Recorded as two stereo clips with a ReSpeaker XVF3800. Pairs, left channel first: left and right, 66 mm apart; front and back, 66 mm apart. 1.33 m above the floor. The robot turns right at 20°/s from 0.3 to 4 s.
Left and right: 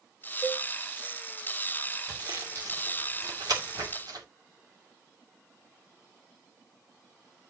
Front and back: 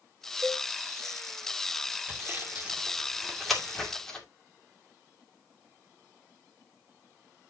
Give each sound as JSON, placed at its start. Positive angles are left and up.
{"t": 0.4, "sound": "a cowbell", "azimuth_deg": 180, "distance_m": 3.5}
{"t": 2.1, "sound": "sawing", "azimuth_deg": -120, "distance_m": 2.0}